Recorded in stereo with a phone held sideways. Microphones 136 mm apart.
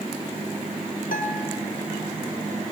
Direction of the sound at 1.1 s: 80° left.